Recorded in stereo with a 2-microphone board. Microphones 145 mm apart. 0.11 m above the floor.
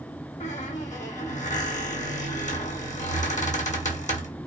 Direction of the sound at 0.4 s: 60° left (ahead or behind).